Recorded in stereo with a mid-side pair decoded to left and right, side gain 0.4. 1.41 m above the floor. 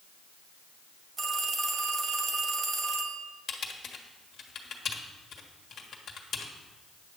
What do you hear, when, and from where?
1.2 s a phone ringing: 50° right, 1.5 m
3.5 s typing on a keyboard: 65° left, 1.4 m